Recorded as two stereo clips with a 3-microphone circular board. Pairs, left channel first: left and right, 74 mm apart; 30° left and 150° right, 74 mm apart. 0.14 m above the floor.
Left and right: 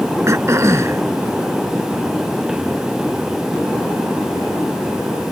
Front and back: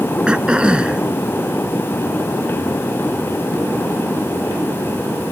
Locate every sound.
0.3 s throat clearing: 80° right